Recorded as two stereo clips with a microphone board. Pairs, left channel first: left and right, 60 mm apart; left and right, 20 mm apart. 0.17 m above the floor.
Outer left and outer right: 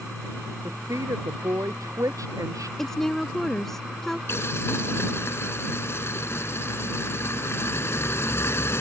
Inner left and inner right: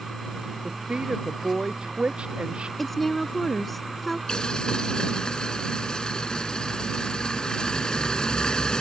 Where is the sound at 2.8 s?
5° left (ahead or behind).